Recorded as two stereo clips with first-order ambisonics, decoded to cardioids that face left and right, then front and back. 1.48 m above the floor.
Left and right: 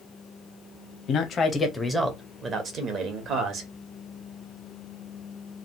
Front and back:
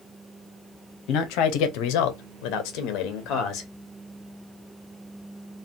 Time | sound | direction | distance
1.1 | a man speaking | 35° left | 0.6 m